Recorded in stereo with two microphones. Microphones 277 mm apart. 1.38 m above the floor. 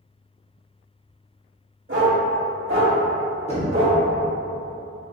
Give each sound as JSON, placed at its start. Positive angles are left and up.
{"t": 1.9, "sound": "a dog barking", "side_deg": -50, "distance_m": 1.5}
{"t": 3.5, "sound": "knocking", "side_deg": 25, "distance_m": 1.2}